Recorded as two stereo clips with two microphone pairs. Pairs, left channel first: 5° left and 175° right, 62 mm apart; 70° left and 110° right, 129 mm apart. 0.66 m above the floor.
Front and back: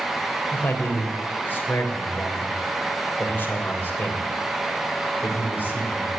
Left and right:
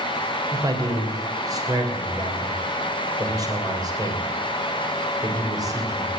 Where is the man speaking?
50° right, 3 m.